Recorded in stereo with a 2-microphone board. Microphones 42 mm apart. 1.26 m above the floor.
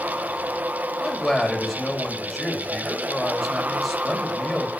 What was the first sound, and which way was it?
A man speaking, 5° right (ahead or behind).